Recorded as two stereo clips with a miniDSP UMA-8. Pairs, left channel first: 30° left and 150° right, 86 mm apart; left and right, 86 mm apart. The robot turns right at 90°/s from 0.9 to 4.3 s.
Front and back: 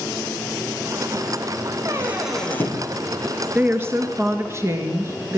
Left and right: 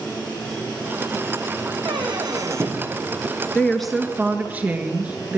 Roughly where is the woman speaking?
Behind left.